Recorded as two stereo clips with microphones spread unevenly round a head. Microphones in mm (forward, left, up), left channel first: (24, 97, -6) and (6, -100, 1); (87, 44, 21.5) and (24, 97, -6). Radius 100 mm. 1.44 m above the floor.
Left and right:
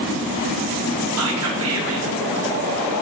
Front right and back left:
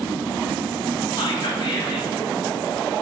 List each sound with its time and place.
1.2 s whispering: 115° right, 0.7 m